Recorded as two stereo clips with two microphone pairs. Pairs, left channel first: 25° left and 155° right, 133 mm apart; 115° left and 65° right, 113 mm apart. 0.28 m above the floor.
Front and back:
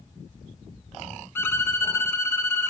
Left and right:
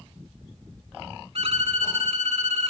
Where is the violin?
45° right, 1.1 m.